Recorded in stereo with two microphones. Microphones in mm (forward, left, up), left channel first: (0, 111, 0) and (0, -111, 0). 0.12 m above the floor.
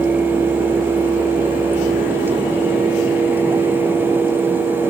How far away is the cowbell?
I don't hear a cowbell.